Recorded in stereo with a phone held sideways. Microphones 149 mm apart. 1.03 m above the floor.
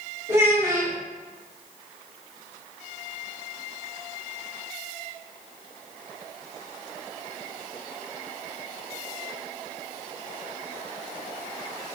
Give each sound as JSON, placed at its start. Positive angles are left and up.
{"t": 0.3, "sound": "a child speaking", "side_deg": -20, "distance_m": 1.6}